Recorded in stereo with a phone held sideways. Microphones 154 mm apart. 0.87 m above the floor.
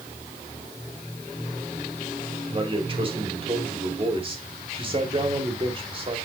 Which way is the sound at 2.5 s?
35° right (ahead or behind).